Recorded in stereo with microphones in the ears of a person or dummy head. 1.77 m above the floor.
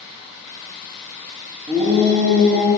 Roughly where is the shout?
Right.